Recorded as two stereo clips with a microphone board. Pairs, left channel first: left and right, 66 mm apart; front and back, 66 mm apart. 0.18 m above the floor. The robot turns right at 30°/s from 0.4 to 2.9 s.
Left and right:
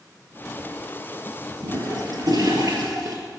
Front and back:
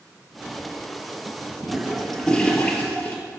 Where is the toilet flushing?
100° right, 3 m; by 3.2 s 60° right, 3 m.